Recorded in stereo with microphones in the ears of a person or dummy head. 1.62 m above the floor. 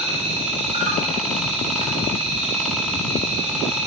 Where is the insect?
40° right (ahead or behind), 6.5 m.